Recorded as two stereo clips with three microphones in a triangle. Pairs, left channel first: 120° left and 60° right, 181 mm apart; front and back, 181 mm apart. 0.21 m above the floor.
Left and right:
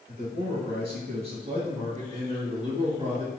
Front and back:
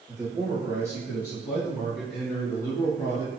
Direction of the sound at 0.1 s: 115° right.